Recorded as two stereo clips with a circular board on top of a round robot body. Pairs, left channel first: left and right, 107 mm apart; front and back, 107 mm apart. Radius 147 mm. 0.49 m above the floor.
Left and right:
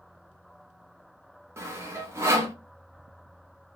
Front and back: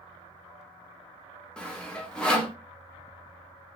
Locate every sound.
1.6 s sawing: 70° right, 1.0 m